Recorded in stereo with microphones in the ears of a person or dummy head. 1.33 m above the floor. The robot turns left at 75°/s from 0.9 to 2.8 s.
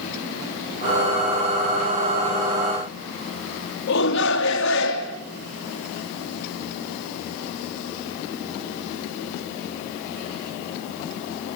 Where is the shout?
65° left (ahead or behind), 2.5 m.